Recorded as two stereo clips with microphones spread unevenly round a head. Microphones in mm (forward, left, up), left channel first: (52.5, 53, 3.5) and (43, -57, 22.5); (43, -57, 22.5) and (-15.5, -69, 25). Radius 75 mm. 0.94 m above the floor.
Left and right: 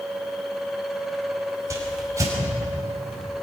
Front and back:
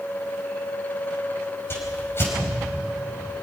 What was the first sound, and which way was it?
A whoosh, 35° right.